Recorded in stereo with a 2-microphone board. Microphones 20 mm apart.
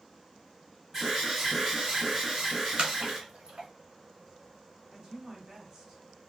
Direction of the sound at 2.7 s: 65° right (ahead or behind).